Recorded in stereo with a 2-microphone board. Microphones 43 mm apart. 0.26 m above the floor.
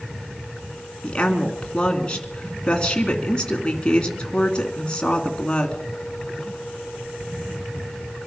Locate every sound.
1.0 s a woman speaking: 20° left (ahead or behind), 2 m